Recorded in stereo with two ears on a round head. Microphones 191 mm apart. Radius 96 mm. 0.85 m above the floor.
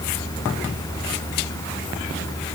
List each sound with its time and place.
Only background noise.